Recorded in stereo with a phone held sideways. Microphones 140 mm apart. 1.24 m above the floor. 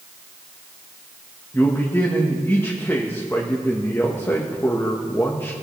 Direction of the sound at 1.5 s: 15° left (ahead or behind).